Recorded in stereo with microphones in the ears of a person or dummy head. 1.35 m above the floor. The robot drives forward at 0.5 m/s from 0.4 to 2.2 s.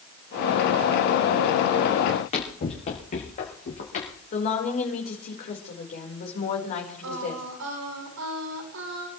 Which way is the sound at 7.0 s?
85° right.